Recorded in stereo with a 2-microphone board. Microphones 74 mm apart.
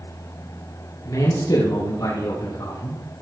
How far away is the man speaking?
About 4.5 m.